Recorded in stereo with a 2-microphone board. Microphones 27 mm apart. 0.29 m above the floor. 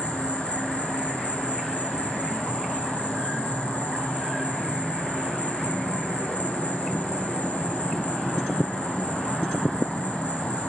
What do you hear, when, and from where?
0.0 s an insect: 60° left (ahead or behind), 2 m